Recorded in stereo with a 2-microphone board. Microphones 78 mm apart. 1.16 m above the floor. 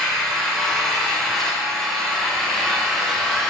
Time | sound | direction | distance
0.0 | an engine running | centre (ahead or behind) | 2.5 m